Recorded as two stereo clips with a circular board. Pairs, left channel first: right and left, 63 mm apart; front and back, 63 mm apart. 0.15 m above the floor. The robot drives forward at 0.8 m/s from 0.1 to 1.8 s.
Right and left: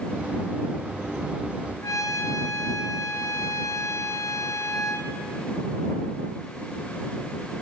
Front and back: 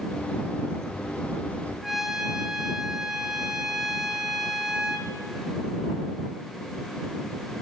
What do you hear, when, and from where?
1.8 s a trumpet: 95° right, 1.2 m